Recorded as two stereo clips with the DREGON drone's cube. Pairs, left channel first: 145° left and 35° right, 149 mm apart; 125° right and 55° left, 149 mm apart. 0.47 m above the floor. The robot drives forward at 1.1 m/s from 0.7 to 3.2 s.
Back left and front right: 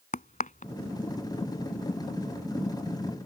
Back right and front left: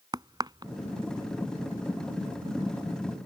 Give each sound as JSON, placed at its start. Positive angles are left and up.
{"t": 0.1, "sound": "a crack", "azimuth_deg": 115}